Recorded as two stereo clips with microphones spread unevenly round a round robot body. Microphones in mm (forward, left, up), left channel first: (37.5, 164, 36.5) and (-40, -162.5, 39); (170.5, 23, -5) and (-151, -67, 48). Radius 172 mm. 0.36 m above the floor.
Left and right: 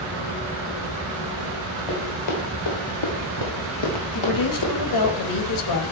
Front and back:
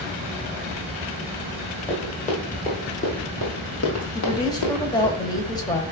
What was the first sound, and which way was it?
Running footsteps, 90° left.